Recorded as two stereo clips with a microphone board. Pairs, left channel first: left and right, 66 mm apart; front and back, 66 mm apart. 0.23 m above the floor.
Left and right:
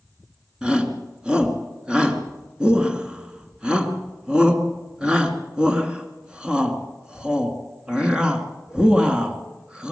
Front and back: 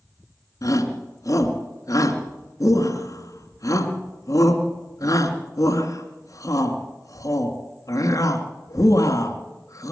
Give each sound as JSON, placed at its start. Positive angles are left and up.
{"t": 0.6, "sound": "a shout", "azimuth_deg": -15, "distance_m": 2.5}